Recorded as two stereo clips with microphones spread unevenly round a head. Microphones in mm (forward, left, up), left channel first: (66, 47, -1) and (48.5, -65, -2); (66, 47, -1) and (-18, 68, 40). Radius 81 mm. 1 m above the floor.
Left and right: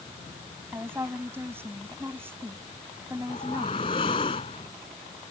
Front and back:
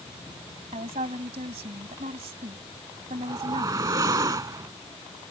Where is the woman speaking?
175° right.